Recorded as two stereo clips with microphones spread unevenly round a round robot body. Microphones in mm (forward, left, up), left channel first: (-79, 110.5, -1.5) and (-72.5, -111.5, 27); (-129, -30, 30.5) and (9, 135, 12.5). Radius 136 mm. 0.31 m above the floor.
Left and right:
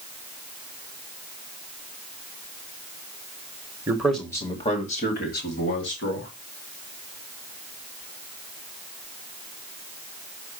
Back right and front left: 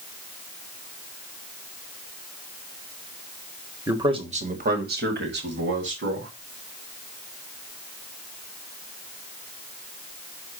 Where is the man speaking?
10° right, 1.5 m; by 6.3 s 65° left, 3.5 m.